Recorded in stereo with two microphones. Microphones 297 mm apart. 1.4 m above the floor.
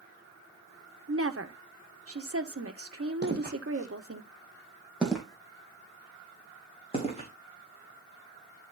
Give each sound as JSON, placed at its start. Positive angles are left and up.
{"t": 1.1, "sound": "a woman speaking", "side_deg": -50, "distance_m": 1.5}
{"t": 3.2, "sound": "footsteps", "side_deg": -35, "distance_m": 2.5}